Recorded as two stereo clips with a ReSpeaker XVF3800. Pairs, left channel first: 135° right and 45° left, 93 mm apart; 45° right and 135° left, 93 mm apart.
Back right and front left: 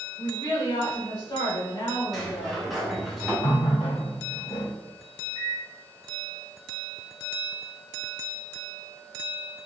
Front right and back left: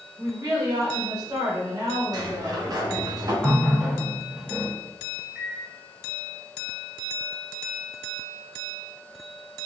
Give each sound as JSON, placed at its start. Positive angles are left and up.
{"t": 0.2, "sound": "a woman speaking", "azimuth_deg": -175, "distance_m": 1.0}
{"t": 2.1, "sound": "a sliding door", "azimuth_deg": 135, "distance_m": 0.8}
{"t": 3.4, "sound": "a running tap", "azimuth_deg": -140, "distance_m": 0.6}
{"t": 5.3, "sound": "a microwave", "azimuth_deg": -145, "distance_m": 1.3}